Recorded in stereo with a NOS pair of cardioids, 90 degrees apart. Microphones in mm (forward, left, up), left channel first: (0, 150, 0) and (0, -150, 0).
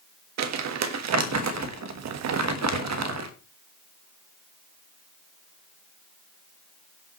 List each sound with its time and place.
0.4 s crumpling: 65° right, 1.4 m